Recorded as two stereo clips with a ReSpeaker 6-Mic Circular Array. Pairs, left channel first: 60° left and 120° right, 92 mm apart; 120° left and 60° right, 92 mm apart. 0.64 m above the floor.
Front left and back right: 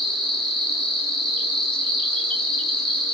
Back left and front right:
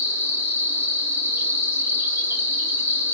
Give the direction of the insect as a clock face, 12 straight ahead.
1 o'clock.